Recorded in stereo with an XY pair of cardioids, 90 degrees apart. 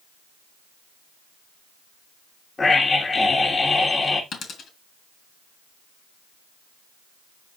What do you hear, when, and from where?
2.6 s a scream: 35° left, 2.5 m
4.3 s a dropped coin: 65° left, 3.5 m